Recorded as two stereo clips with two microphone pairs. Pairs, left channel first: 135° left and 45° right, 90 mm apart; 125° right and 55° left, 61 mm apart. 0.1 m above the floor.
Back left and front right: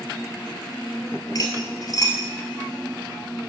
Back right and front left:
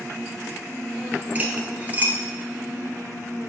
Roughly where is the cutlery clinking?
Left.